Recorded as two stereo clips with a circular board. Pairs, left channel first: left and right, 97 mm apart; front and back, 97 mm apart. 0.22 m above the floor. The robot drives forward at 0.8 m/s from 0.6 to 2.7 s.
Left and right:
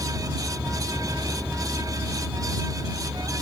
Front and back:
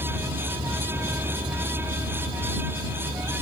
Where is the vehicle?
160° right.